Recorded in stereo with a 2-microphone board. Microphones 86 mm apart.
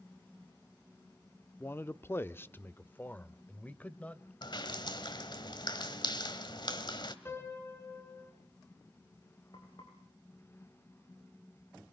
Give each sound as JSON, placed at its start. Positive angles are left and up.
{"t": 1.6, "sound": "a man speaking", "side_deg": 25, "distance_m": 0.7}
{"t": 4.4, "sound": "dripping", "side_deg": 60, "distance_m": 2.0}
{"t": 7.2, "sound": "a piano", "side_deg": 25, "distance_m": 4.5}
{"t": 9.5, "sound": "frying", "side_deg": 60, "distance_m": 9.0}